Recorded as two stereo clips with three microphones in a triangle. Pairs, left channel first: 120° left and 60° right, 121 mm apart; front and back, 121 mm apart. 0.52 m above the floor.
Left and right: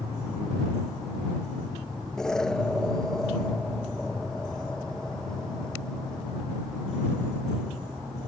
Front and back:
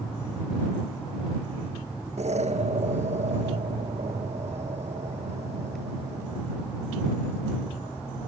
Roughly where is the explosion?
Behind right.